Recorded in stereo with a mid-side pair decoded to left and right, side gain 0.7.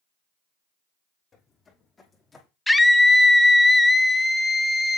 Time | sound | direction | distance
1.3 | footsteps | 30° left | 3 m
2.7 | a scream | 10° left | 1.0 m